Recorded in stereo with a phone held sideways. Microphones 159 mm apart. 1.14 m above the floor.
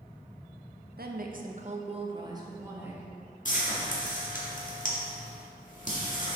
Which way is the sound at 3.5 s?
55° left (ahead or behind).